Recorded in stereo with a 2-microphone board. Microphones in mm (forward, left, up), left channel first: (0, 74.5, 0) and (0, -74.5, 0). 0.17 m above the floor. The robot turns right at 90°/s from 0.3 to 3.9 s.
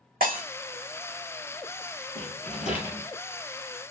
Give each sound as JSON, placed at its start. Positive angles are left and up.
{"t": 0.2, "sound": "breaking glass", "side_deg": -75, "distance_m": 3.5}
{"t": 2.1, "sound": "a rattle", "azimuth_deg": 80, "distance_m": 2.5}